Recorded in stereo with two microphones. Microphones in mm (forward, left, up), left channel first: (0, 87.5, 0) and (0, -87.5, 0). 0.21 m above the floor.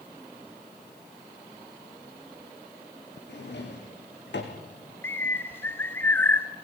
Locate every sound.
3.3 s a drawer: 85° left, 4.5 m
5.0 s a bird: 10° left (ahead or behind), 1.4 m